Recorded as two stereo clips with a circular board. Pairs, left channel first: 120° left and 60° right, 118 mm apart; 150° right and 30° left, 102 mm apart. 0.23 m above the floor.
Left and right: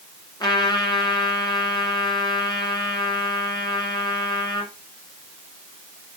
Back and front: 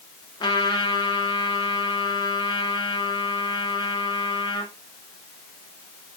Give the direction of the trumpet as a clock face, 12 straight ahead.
6 o'clock.